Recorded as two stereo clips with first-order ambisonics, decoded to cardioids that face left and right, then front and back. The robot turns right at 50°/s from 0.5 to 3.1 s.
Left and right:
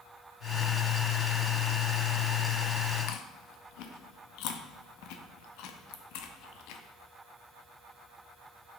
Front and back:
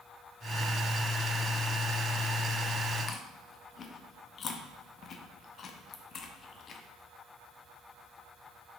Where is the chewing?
60° left, 0.6 m.